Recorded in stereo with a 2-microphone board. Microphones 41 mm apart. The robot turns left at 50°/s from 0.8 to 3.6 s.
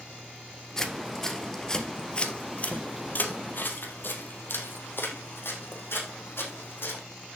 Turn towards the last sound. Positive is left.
turn(degrees=70)  # may be behind; listen again after turning